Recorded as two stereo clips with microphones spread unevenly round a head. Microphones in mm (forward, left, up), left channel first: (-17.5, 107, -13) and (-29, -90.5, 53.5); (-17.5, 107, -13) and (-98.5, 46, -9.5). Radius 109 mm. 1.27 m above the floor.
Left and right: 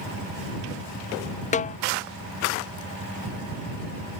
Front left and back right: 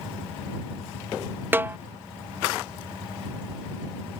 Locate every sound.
1.5 s a snare drum: 145° left